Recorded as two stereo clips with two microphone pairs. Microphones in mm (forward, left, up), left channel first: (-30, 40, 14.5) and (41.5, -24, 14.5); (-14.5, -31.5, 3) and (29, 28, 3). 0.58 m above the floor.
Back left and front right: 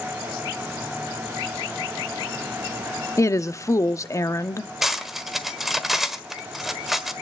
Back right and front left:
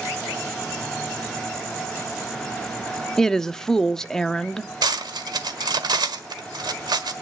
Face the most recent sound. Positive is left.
turn(degrees=45)